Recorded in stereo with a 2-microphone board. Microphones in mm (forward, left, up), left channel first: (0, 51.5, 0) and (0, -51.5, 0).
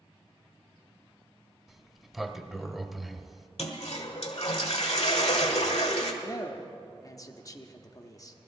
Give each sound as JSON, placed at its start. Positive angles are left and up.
{"t": 1.7, "sound": "a sliding door", "side_deg": 0, "distance_m": 0.5}
{"t": 3.6, "sound": "a toilet flushing", "side_deg": 75, "distance_m": 1.2}
{"t": 6.2, "sound": "a man speaking", "side_deg": 35, "distance_m": 0.8}